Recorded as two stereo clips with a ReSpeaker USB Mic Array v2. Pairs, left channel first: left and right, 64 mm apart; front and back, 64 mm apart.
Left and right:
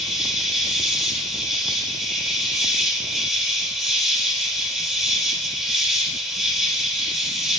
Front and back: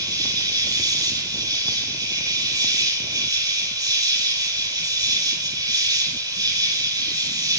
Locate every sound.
0.0 s an insect: 175° right, 4.5 m